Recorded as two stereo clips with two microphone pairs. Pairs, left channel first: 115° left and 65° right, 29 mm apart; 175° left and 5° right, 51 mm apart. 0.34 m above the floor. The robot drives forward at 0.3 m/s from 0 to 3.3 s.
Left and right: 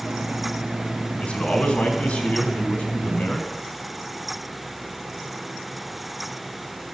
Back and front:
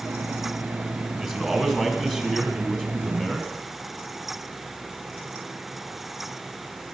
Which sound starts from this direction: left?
A man speaking, at 1.2 s.